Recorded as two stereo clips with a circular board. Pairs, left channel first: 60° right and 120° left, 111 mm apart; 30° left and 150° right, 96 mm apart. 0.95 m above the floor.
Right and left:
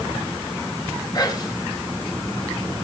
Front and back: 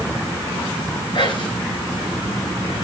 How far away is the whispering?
About 5.5 m.